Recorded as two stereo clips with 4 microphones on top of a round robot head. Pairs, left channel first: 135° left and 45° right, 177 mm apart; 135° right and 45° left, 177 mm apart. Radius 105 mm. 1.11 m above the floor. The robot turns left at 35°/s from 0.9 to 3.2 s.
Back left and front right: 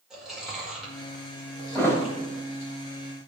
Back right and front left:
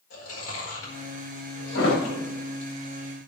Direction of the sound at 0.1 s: 135° right.